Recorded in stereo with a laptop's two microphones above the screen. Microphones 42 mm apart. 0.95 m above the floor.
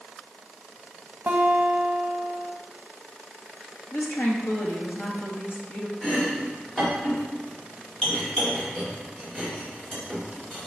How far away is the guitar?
About 1.0 m.